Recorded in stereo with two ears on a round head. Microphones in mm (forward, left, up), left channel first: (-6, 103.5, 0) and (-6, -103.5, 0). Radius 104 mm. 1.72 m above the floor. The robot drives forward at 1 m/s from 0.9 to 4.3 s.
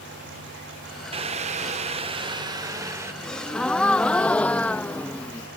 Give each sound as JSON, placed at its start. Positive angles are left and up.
{"t": 1.1, "sound": "boiling", "side_deg": -25}
{"t": 3.2, "sound": "a gasp", "side_deg": 5}